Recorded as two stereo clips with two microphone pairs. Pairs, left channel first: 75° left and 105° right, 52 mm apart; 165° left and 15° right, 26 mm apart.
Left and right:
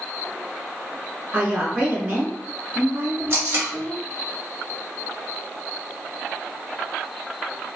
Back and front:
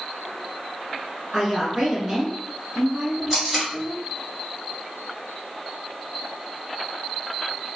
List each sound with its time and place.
1.3 s a woman speaking: 100° right, 1.1 m
3.3 s tape being pulled: 100° right, 1.8 m